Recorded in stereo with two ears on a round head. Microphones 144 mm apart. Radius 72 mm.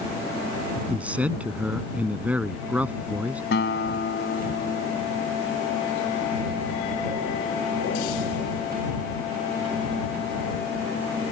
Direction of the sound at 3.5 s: 80° left.